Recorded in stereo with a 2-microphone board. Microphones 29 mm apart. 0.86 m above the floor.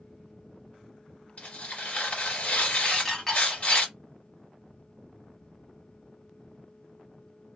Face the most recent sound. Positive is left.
turn(degrees=5)  # may be behind; listen again after turning